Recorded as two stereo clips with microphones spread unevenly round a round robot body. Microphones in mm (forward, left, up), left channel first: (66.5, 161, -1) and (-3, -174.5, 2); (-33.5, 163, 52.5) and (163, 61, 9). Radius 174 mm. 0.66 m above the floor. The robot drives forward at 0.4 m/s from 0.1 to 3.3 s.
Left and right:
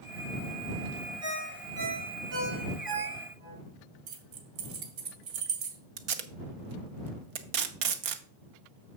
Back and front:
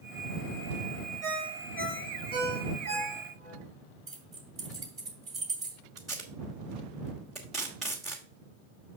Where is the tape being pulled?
115° right, 0.9 m.